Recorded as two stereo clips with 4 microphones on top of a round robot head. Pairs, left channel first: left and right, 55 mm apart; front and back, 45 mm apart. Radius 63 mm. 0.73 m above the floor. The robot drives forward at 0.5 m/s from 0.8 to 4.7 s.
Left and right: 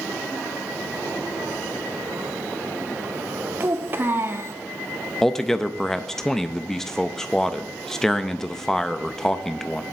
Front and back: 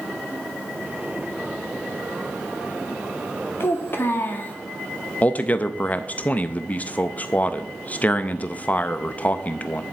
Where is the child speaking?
35° right, 1.2 m; by 4.5 s 55° right, 0.9 m.